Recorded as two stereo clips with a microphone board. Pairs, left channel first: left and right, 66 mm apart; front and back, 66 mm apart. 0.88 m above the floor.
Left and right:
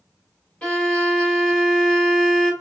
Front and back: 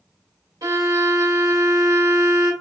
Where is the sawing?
No sawing in this recording.